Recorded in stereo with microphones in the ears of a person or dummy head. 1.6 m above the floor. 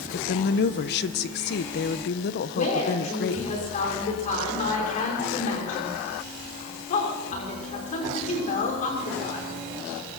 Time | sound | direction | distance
0.1 | a woman speaking | 55° left (ahead or behind) | 0.9 m
2.5 | a woman speaking | 40° left (ahead or behind) | 6 m